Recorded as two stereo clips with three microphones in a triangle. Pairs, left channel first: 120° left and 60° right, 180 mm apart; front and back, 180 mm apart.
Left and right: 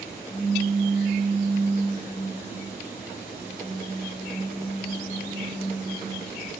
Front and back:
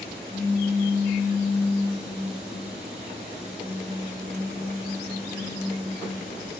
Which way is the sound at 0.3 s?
80° right.